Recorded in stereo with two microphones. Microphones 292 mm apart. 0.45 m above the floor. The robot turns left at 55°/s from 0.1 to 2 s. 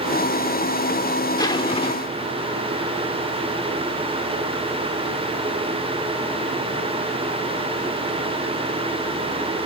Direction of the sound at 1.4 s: 10° left (ahead or behind).